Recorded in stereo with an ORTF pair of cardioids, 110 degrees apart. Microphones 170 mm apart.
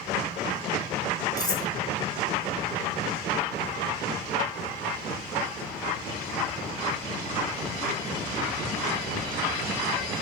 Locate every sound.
1.4 s cutlery clinking: 25° left, 3.5 m